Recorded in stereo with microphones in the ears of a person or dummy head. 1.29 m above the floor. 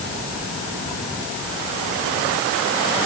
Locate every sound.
Only background noise.